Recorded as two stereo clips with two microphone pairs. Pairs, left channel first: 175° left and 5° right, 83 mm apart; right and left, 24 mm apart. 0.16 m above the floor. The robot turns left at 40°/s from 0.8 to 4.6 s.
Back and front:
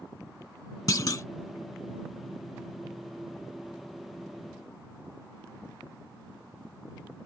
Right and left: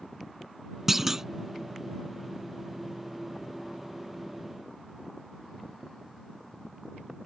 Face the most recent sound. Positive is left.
turn(degrees=10)